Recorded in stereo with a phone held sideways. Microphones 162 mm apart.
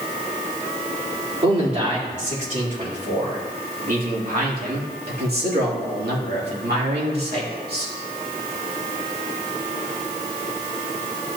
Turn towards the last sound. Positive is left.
turn(degrees=-70)  # may be behind; listen again after turning